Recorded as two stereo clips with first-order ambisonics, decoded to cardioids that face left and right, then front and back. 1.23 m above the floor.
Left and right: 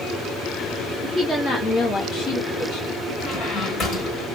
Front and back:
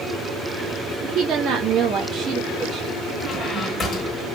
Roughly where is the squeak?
Ahead left.